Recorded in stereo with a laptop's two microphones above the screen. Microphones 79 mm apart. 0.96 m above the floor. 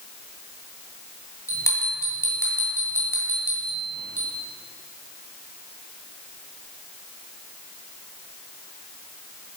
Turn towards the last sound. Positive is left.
turn(degrees=40)  # may be behind; listen again after turning